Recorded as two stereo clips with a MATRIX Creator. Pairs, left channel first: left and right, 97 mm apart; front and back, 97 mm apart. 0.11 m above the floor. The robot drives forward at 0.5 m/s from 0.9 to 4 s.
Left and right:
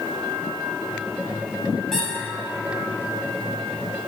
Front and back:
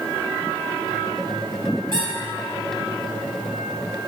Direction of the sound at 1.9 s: 175° left.